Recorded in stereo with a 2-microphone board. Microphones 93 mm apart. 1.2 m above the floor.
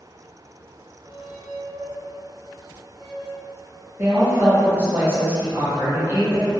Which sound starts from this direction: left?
A squeak, at 1.0 s.